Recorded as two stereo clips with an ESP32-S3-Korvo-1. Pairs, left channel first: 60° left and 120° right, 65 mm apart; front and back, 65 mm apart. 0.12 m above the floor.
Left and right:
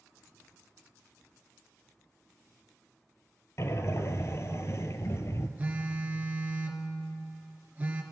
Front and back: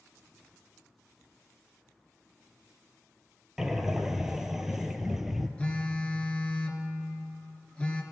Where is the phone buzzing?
65° right, 1.3 m.